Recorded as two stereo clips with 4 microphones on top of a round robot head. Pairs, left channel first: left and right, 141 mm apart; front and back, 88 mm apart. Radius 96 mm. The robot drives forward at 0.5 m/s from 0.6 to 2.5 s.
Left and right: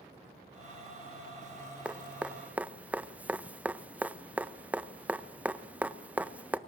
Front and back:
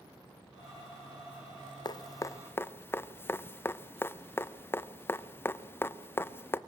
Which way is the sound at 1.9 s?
10° right.